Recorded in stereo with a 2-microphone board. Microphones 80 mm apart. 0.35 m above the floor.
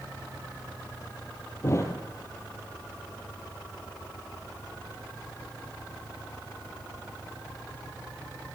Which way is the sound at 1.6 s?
35° left (ahead or behind).